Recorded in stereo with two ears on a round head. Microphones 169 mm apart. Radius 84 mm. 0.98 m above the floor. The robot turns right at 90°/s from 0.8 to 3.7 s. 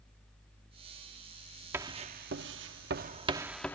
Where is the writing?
15° right (ahead or behind); by 3.8 s 10° left (ahead or behind).